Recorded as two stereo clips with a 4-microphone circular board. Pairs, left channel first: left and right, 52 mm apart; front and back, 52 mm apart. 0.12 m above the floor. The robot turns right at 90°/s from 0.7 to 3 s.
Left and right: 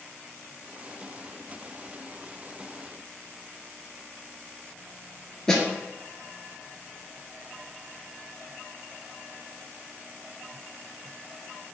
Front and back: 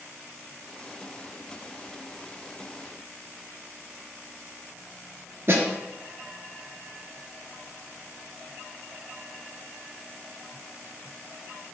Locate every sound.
5.5 s a snare drum: 165° left, 0.7 m